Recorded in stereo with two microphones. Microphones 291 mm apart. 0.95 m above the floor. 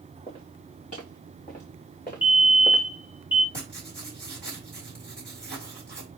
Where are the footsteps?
25° left (ahead or behind), 5.5 m; by 2.8 s 35° left (ahead or behind), 4 m.